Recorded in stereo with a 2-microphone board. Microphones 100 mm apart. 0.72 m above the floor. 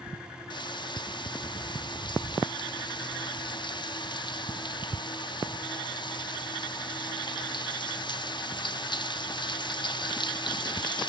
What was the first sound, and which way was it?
Frying, 50° left (ahead or behind).